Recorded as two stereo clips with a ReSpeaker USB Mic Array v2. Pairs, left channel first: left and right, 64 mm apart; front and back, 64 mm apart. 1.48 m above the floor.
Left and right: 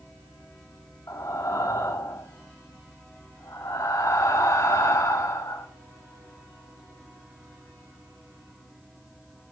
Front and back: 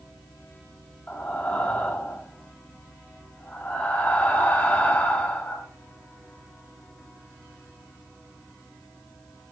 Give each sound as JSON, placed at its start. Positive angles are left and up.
{"t": 1.1, "sound": "breathing", "azimuth_deg": 65, "distance_m": 2.5}